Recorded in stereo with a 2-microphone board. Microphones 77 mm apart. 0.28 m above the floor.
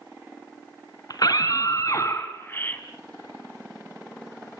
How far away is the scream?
About 3.5 m.